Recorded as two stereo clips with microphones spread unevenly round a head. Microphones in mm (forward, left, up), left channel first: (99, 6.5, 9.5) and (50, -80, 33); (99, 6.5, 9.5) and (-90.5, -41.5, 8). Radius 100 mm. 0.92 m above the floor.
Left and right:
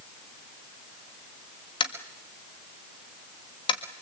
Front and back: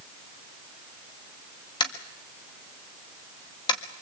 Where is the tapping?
80° left, 1.7 m.